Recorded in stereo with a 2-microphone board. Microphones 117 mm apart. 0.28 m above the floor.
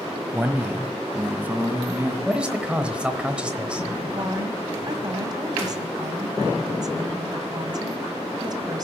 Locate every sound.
0.3 s a man speaking: 15° right (ahead or behind), 1.3 m
2.2 s a man speaking: 10° right (ahead or behind), 0.9 m
4.1 s a woman speaking: 35° right (ahead or behind), 1.9 m